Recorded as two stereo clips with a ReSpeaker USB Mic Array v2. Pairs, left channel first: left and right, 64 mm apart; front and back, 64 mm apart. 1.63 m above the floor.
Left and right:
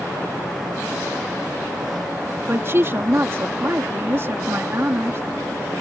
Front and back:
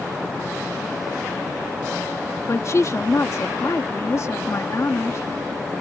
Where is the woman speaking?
40° right.